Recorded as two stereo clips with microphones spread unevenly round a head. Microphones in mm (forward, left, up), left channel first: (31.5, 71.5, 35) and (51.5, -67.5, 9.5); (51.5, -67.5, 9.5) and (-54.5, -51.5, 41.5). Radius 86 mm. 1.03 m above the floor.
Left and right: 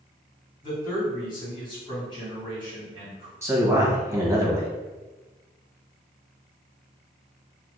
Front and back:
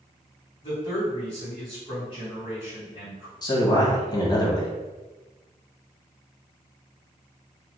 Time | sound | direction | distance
0.6 | a man speaking | 45° left | 1.8 m
3.4 | a man speaking | 25° right | 1.3 m